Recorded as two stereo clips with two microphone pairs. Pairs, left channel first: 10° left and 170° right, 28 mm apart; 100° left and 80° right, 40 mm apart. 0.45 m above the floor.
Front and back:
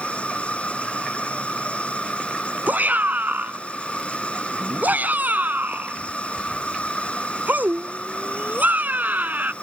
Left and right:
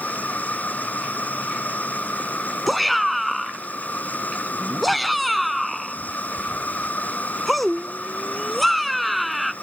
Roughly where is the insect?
Ahead left.